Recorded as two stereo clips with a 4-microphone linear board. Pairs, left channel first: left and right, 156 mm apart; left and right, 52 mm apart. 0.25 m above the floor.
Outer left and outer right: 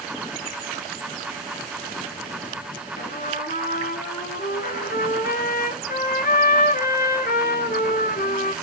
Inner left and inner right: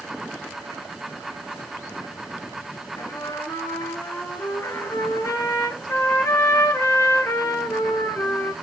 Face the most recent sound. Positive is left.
turn(degrees=85)